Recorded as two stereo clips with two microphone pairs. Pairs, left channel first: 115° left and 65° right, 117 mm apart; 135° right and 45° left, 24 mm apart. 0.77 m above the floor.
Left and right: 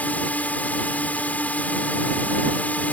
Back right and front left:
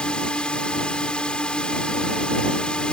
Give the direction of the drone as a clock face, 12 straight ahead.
6 o'clock.